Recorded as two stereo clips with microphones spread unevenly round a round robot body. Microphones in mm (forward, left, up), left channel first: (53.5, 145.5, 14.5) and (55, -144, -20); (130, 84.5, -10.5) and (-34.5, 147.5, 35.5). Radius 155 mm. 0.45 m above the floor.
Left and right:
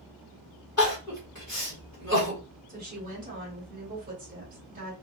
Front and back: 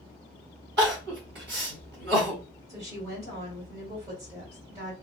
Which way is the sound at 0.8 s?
175° left.